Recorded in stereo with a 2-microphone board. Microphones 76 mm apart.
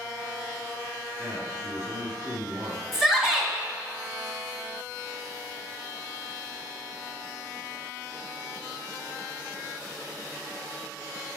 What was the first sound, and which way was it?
A man speaking, 35° right (ahead or behind).